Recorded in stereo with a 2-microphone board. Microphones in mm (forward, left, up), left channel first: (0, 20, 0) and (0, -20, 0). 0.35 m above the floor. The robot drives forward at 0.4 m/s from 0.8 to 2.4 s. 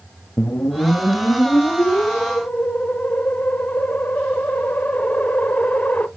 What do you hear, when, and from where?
0.4 s a whoosh: 65° left (ahead or behind), 0.6 m; by 6.1 s 35° left (ahead or behind), 0.9 m